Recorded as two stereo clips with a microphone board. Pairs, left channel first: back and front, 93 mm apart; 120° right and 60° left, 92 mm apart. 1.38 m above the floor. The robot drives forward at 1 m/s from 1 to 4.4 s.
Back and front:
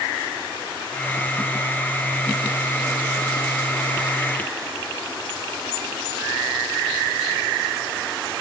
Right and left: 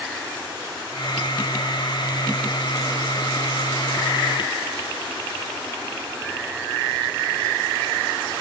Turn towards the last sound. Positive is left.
No sound to turn to.